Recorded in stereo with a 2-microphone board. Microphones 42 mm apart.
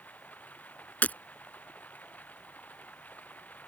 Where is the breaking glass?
45° left (ahead or behind).